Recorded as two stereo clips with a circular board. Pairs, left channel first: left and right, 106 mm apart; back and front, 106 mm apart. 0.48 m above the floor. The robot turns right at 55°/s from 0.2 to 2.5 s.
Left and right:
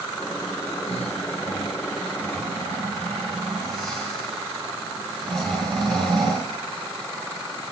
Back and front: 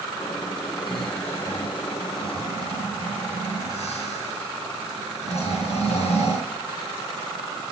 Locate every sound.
0.9 s snoring: 90° left, 8 m; by 6.5 s straight behind, 8 m